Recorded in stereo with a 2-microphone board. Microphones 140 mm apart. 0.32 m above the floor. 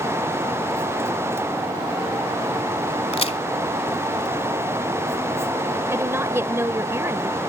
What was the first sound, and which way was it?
A crack, 50° left (ahead or behind).